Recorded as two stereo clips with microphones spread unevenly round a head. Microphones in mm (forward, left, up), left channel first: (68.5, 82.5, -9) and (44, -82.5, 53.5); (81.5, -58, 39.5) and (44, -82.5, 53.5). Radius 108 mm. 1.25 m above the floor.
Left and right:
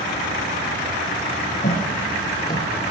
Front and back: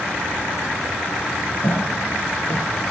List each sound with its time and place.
1.6 s footsteps: 35° left, 1.6 m; by 2.9 s 35° right, 1.3 m